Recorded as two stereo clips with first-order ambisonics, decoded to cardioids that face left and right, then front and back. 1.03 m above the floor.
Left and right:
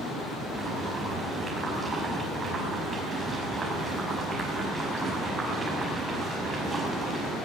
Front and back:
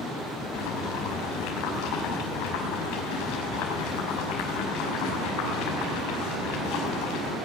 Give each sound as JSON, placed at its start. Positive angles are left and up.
{"t": 0.5, "sound": "boiling", "azimuth_deg": -15, "distance_m": 5.0}